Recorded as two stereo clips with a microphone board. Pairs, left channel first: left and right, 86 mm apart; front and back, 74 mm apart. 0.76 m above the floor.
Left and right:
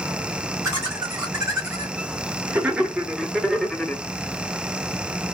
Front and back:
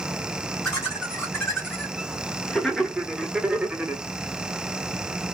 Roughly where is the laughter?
Ahead right.